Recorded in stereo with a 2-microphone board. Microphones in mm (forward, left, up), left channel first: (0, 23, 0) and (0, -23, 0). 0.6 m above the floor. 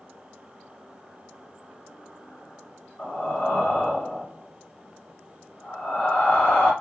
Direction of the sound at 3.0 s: 35° left (ahead or behind).